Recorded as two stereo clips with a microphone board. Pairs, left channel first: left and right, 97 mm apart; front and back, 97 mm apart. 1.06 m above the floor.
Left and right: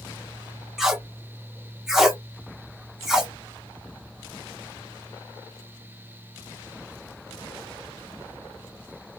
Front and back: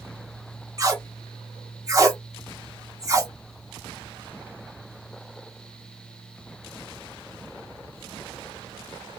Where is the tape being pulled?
175° right, 0.7 m.